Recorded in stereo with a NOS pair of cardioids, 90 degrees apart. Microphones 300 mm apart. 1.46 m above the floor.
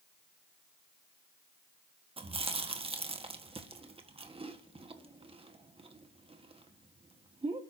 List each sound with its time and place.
2.2 s chewing: 20° right, 1.6 m